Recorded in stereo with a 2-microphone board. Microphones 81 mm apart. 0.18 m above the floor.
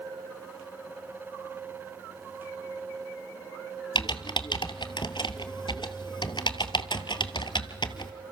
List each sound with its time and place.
4.0 s typing on a keyboard: 70° left (ahead or behind), 1.2 m